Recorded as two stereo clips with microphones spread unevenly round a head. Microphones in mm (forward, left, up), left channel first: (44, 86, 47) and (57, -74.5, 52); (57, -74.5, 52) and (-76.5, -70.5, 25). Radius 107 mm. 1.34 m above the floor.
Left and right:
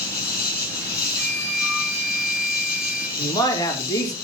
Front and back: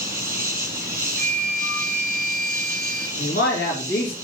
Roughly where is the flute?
Behind left.